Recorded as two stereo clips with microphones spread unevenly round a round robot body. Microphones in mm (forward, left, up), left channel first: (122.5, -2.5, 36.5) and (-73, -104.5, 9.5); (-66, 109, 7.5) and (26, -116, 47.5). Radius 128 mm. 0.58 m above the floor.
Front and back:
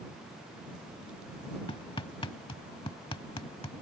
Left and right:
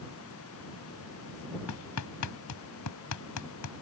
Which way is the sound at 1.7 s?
100° left.